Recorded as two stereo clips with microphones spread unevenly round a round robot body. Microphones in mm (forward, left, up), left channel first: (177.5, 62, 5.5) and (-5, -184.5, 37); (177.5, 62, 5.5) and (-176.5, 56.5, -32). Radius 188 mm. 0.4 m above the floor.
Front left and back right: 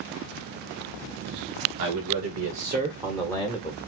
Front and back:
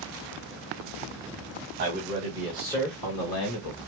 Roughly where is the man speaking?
Behind right.